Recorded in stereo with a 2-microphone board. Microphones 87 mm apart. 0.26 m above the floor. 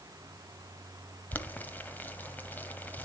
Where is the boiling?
20° left (ahead or behind), 1.0 m.